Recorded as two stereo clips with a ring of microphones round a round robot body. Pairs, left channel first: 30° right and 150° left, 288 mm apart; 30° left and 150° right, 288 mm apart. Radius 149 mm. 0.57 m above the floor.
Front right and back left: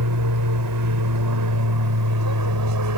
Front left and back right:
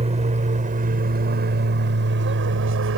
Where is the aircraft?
145° left; by 3.0 s 170° left.